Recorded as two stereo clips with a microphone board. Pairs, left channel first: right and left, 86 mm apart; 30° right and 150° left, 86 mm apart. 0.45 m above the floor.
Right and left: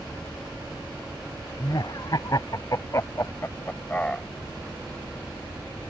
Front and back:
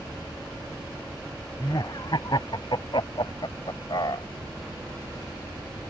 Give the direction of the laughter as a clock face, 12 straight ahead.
2 o'clock.